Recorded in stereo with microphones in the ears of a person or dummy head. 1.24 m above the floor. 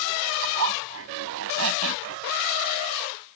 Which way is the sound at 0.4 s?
70° right (ahead or behind).